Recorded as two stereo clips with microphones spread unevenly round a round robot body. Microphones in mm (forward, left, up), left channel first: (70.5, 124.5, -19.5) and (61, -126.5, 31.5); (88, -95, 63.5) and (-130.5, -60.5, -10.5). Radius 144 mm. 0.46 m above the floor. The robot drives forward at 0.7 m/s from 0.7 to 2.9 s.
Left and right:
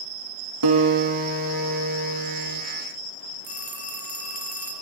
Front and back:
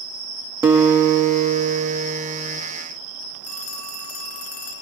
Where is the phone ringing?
35° right, 5.5 m.